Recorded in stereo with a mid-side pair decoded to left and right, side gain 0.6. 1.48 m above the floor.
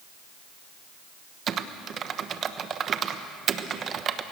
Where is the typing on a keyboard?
45° right, 1.2 m.